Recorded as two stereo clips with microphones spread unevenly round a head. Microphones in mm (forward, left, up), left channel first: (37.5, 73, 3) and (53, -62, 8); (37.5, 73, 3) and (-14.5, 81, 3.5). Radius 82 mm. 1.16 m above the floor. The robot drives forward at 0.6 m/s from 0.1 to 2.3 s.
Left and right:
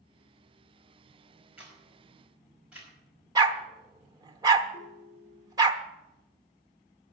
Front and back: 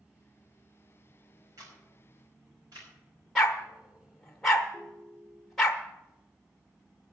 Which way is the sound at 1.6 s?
165° right.